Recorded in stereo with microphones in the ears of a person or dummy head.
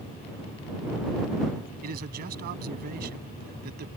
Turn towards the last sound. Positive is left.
turn(degrees=-55)  # may be behind; listen again after turning